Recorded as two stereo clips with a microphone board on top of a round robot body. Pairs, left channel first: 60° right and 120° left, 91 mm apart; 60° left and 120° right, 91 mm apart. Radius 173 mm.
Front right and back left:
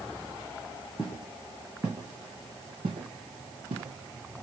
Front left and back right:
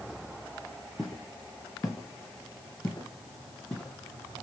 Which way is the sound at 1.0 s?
30° right.